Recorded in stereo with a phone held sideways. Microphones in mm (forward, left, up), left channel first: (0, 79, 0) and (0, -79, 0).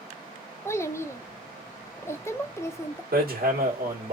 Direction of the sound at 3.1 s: 70° right (ahead or behind).